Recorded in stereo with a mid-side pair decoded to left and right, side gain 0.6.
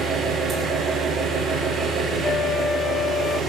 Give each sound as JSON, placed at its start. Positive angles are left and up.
{"t": 0.0, "sound": "an engine running", "azimuth_deg": -35, "distance_m": 7.5}
{"t": 2.2, "sound": "a flute", "azimuth_deg": 45, "distance_m": 0.5}